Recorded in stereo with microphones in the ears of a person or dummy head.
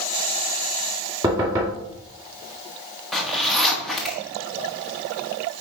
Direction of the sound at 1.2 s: 25° right (ahead or behind).